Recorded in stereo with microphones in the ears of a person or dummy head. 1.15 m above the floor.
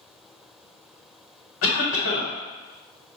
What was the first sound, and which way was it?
A cough, 80° left.